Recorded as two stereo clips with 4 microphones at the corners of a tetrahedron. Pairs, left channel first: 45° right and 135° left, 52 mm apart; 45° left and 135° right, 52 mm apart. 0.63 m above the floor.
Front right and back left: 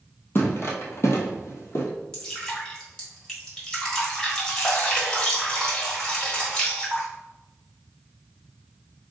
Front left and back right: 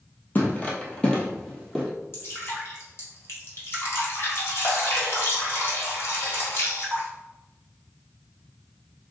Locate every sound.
0.3 s footsteps: 5° right, 1.2 m; by 1.9 s 45° right, 1.4 m
2.1 s dripping: 25° left, 1.6 m